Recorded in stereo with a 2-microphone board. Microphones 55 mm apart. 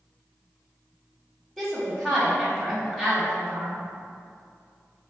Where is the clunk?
I don't hear a clunk.